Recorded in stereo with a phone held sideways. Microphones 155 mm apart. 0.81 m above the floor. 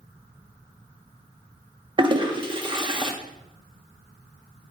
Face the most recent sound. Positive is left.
turn(degrees=-30)  # may be behind; listen again after turning